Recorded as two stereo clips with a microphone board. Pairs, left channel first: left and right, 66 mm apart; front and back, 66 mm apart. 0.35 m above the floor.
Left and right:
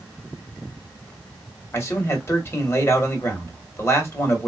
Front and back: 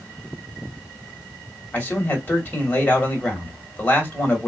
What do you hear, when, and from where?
1.7 s a man speaking: 55° left, 2 m